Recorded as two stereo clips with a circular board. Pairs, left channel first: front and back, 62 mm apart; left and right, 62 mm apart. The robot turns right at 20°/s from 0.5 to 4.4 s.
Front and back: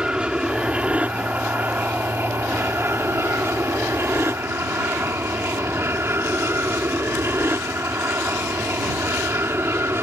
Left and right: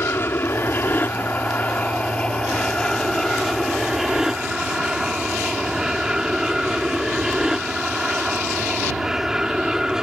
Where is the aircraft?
115° left; by 10.0 s 165° right.